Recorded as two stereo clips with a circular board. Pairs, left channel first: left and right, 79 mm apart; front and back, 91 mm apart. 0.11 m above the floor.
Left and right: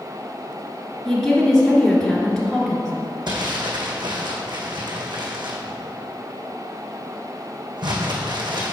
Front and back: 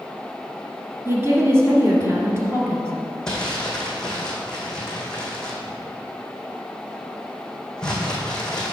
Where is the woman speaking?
170° left, 1.7 m.